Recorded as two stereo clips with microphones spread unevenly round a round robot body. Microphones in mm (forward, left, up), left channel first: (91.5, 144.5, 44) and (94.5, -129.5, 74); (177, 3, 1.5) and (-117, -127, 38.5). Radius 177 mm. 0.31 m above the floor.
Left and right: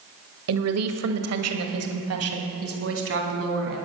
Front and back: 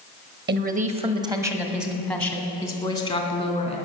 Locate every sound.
0.5 s a woman speaking: 100° right, 1.6 m; by 3.8 s 45° right, 3.5 m